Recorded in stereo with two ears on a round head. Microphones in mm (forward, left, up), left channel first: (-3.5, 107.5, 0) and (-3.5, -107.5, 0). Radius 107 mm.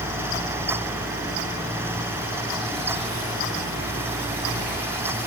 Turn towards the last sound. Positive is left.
No sound to turn to.